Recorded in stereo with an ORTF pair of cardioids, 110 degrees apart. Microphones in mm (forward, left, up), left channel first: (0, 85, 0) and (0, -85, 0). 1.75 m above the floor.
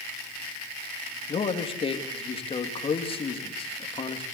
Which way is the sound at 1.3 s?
35° left.